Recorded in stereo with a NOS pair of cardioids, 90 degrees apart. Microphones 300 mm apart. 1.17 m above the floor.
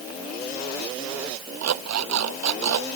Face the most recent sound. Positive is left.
turn(degrees=-65)